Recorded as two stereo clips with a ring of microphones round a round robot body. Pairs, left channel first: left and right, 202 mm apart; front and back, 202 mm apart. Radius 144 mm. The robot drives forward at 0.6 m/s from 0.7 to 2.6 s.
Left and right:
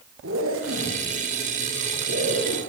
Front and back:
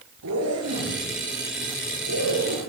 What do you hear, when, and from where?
0.2 s a zipper: 140° right, 7 m; by 2.6 s 145° right, 8 m